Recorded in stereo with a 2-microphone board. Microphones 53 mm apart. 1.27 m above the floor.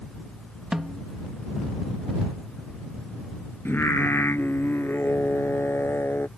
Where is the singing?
45° left (ahead or behind).